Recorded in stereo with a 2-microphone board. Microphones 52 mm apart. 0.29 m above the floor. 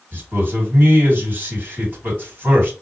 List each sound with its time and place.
0.1 s a man speaking: 45° right (ahead or behind), 2 m